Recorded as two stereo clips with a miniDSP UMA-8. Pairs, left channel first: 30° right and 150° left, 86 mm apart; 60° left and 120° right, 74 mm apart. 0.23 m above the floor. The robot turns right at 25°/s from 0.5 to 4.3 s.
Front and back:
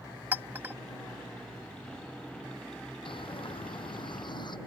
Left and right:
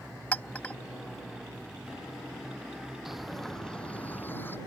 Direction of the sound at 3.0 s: 35° right.